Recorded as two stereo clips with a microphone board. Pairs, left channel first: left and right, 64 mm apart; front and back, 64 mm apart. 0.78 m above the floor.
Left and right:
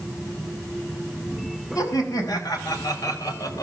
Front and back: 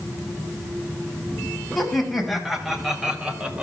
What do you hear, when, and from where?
1.8 s laughter: 85° left, 5.5 m; by 3.6 s 110° left, 3 m